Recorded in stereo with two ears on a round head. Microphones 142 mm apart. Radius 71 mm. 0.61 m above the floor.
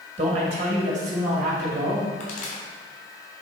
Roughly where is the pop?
Left.